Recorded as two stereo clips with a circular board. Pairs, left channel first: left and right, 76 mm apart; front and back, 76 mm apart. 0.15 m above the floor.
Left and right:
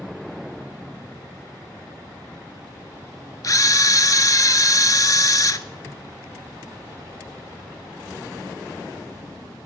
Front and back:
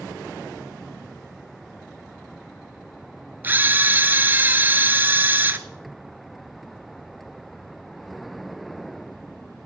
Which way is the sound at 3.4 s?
120° left.